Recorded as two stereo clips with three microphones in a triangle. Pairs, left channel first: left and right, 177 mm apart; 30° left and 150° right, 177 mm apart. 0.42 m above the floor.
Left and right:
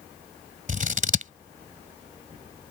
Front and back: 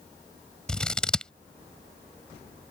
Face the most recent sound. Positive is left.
turn(degrees=-55)